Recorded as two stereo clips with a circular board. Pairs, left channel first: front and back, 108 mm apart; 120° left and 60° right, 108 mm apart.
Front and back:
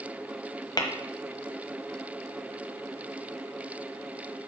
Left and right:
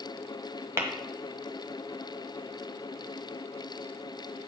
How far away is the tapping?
About 1.2 m.